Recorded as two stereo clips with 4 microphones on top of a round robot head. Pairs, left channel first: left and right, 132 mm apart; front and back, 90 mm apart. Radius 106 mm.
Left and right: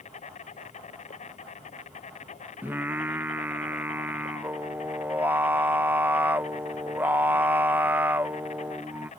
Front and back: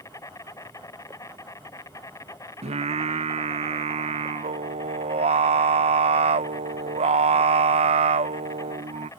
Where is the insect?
55° left.